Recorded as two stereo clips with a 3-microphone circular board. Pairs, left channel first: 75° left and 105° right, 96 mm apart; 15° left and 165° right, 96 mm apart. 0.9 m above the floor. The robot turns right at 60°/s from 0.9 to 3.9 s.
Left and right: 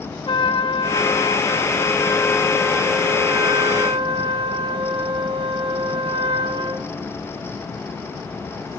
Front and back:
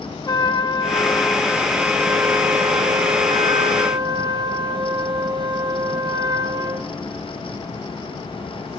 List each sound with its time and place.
0.3 s a trumpet: 55° left, 0.7 m; by 6.9 s 125° right, 0.7 m